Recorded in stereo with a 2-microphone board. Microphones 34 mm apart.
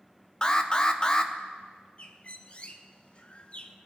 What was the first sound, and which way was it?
An alarm, 20° left (ahead or behind).